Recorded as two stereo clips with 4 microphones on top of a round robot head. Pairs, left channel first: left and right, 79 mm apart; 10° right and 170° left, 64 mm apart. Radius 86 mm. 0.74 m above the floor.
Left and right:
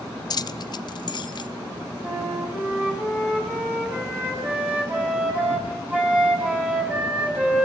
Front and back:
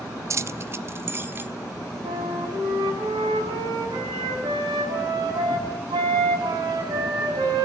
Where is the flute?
160° right, 5 m.